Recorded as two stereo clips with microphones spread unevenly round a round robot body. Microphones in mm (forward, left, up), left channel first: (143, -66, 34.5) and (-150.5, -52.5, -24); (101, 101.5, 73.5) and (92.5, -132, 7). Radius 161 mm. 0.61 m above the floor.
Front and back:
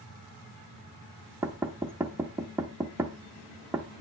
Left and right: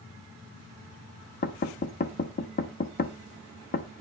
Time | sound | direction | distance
1.4 | knocking | 125° left | 0.6 m